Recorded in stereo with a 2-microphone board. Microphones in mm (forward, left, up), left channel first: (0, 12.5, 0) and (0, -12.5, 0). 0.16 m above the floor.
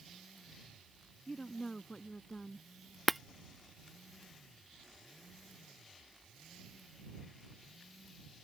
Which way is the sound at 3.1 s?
5° left (ahead or behind).